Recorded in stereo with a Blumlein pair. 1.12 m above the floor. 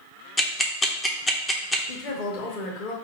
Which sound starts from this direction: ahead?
Ticking, at 0.4 s.